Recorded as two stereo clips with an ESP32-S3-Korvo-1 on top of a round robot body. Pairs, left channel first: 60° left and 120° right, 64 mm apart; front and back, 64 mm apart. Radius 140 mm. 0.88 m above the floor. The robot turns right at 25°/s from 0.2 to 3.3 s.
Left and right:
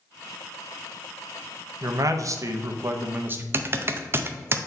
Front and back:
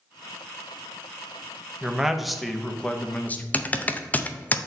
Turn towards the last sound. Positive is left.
turn(degrees=-70)